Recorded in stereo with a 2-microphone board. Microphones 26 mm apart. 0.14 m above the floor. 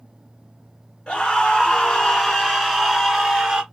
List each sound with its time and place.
1.1 s a scream: 30° left (ahead or behind), 1.4 m; by 3.6 s 15° right (ahead or behind), 1.6 m